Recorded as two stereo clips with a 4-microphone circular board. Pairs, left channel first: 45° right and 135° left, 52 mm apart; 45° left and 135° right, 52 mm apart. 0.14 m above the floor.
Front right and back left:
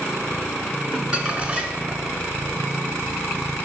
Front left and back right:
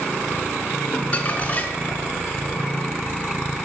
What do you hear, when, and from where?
0.9 s crumpling: 85° left, 0.9 m